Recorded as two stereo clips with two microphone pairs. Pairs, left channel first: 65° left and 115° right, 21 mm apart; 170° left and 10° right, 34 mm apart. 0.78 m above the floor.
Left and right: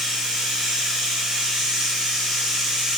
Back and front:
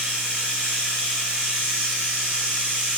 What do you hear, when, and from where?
0.0 s running water: 75° right, 2 m